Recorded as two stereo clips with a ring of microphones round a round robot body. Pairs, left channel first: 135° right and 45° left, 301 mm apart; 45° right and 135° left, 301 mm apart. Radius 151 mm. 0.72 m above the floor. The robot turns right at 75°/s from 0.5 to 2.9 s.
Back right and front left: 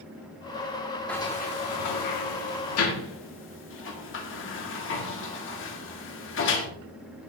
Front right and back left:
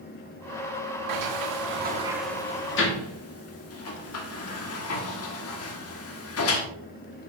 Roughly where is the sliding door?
Behind left.